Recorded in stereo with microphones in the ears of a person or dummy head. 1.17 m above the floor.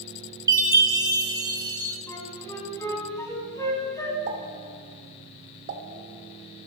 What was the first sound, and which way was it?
A chime, 20° right (ahead or behind).